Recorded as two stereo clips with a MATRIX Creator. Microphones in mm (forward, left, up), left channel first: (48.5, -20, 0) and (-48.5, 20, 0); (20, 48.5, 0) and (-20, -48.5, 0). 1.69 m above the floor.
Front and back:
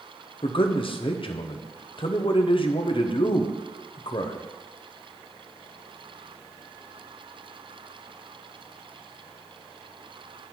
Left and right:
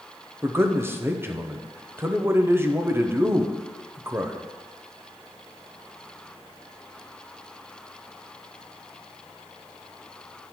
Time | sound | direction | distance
0.4 | a man speaking | 45° right | 0.7 m